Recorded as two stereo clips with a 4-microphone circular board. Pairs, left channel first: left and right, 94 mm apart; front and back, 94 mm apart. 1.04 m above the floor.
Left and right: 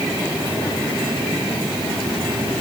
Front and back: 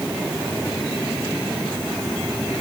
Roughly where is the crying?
No crying in this recording.